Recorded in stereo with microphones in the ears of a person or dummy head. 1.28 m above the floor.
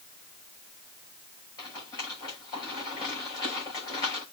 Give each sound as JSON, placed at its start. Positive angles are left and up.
{"t": 1.6, "sound": "a rattle", "side_deg": 25, "distance_m": 6.5}